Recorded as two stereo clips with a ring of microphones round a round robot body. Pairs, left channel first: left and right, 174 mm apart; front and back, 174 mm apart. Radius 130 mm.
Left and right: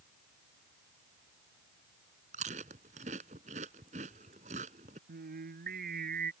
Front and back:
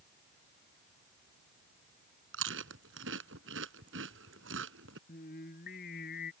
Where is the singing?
60° right.